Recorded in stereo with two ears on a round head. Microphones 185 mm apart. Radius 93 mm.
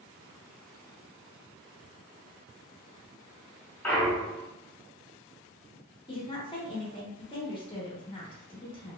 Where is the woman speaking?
25° left (ahead or behind), 0.7 m.